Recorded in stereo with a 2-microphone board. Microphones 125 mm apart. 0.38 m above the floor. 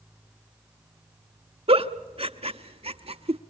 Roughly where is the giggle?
Right.